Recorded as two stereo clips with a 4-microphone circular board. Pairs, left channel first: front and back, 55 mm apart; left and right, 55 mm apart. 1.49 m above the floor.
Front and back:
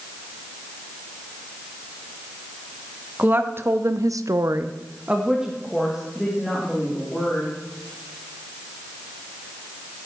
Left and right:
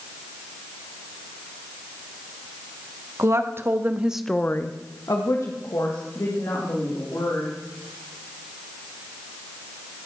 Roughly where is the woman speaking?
Behind right.